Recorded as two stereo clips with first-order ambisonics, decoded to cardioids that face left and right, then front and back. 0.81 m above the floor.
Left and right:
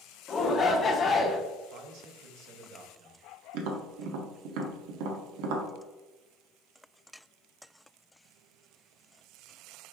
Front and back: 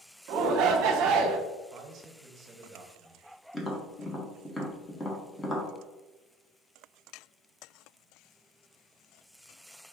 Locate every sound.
0.3 s a shout: 155° left, 0.8 m
1.7 s a man speaking: 125° right, 0.8 m
3.5 s tapping: 80° right, 0.8 m